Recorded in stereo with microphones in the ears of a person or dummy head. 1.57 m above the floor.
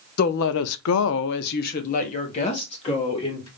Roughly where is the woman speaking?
Left.